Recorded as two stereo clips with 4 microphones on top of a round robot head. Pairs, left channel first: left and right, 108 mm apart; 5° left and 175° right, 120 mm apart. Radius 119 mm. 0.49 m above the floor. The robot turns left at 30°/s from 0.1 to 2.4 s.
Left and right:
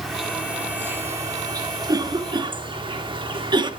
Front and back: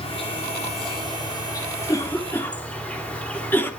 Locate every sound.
0.0 s an insect: straight ahead, 1.8 m; by 3.8 s 70° right, 1.8 m
1.9 s a cough: 45° right, 1.2 m; by 3.7 s 60° right, 1.2 m